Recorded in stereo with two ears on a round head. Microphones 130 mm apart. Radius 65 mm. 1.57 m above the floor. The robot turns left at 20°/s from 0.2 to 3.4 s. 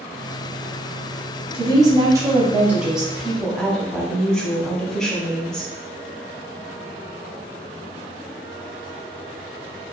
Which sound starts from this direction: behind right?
A woman speaking, at 1.5 s.